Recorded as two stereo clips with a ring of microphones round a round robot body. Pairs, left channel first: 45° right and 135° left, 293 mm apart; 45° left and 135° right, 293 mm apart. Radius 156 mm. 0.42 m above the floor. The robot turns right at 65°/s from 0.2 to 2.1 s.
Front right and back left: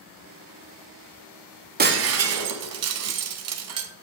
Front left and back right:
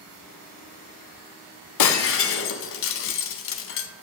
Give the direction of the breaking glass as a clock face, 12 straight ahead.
10 o'clock.